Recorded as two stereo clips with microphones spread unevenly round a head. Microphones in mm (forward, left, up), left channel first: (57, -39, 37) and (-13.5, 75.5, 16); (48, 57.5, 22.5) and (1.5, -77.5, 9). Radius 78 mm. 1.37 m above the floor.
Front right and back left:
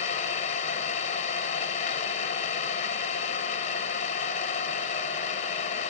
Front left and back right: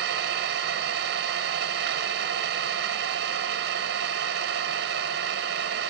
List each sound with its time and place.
0.0 s an engine running: 105° right, 1.0 m